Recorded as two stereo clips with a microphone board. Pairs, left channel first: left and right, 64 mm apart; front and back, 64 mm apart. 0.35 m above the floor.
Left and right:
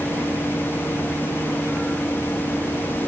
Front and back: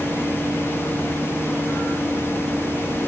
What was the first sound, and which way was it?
Only background noise.